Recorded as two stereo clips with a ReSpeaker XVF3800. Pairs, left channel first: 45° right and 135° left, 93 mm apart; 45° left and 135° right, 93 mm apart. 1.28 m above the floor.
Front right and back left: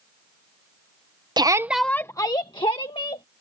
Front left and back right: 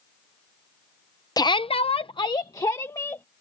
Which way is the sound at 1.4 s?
95° left.